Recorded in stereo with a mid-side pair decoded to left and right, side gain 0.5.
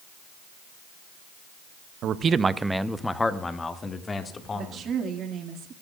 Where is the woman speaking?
55° right, 2.5 m.